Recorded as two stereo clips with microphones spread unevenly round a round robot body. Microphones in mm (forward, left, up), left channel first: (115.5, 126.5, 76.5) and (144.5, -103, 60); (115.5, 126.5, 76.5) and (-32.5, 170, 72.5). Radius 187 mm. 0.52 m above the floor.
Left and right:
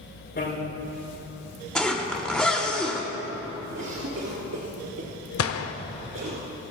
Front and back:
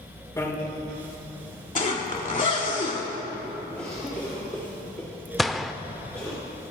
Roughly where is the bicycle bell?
Ahead left.